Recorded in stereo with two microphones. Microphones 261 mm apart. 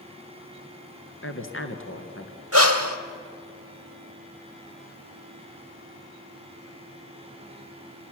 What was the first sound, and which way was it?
A woman speaking, 45° left (ahead or behind).